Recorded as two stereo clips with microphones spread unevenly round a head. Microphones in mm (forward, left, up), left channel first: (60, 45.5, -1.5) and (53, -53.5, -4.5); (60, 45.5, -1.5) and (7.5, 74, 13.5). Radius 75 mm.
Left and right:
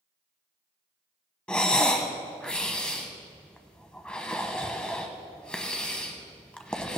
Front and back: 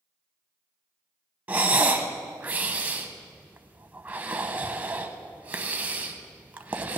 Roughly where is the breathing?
Behind.